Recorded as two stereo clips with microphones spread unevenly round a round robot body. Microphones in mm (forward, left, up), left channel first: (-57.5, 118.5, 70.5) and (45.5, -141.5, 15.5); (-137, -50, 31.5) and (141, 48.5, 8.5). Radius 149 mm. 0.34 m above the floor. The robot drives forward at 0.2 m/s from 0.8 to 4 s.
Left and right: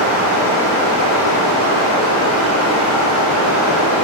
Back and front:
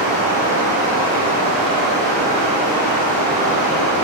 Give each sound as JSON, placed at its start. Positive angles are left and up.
{"t": 0.0, "sound": "running water", "azimuth_deg": 120, "distance_m": 1.2}